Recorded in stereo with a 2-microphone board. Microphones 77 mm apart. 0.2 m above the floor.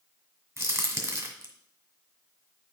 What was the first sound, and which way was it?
A crack, 35° right (ahead or behind).